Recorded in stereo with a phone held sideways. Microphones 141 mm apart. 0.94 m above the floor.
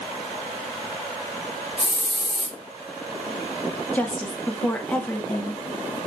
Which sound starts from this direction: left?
A hiss, at 1.8 s.